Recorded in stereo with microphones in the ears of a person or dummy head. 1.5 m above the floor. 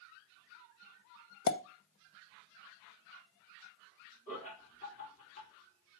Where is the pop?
60° left (ahead or behind), 0.8 m.